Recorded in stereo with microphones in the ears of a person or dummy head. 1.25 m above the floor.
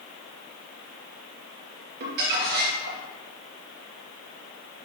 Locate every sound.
2.0 s crumpling: 60° right (ahead or behind), 2 m